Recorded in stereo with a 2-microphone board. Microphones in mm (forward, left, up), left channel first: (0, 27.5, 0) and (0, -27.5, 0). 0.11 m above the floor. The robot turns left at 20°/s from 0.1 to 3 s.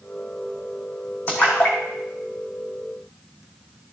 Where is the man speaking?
No man speaking in this recording.